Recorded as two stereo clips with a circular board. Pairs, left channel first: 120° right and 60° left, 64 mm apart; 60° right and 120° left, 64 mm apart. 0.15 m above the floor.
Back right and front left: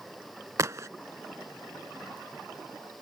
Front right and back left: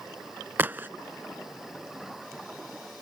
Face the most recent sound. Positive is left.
turn(degrees=70)